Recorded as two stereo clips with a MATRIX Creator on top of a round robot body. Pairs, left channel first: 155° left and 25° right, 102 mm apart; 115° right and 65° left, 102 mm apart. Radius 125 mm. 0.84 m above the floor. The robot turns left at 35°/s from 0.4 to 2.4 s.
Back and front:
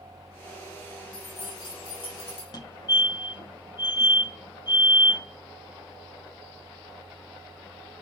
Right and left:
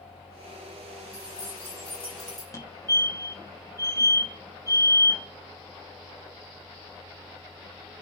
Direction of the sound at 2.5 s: 165° right.